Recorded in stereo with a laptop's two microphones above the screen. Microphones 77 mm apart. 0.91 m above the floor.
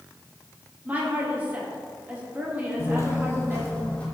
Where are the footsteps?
40° left (ahead or behind), 1.1 m; by 4.0 s 15° left (ahead or behind), 2.0 m.